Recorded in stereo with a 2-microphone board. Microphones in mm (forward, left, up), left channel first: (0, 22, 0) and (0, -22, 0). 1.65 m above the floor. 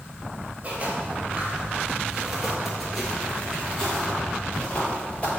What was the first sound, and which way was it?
Footsteps, 30° right (ahead or behind).